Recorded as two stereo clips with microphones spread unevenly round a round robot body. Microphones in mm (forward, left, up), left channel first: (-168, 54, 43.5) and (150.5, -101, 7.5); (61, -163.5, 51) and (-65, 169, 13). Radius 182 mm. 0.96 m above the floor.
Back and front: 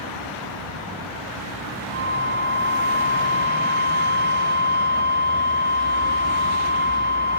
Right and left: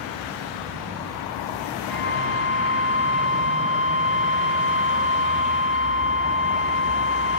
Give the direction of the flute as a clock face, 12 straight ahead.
11 o'clock.